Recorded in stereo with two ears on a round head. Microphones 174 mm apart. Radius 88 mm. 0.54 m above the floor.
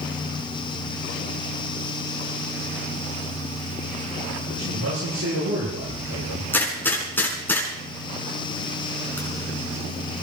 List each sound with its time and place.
4.5 s a man speaking: 75° right (ahead or behind), 10 m; by 6.4 s 85° right, 10.5 m
6.5 s a gunshot: 10° left (ahead or behind), 5.5 m